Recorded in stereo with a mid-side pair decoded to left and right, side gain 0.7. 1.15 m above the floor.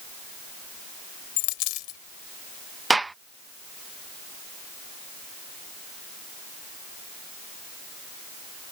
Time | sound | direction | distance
1.4 | a dropped coin | 70° left | ?
2.9 | a gunshot | 10° right | ?